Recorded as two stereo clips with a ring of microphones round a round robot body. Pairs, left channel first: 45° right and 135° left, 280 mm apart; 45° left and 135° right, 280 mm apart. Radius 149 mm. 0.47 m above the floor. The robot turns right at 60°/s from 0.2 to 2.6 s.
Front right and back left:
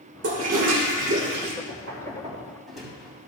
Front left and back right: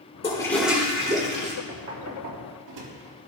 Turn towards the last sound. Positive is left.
turn(degrees=-135)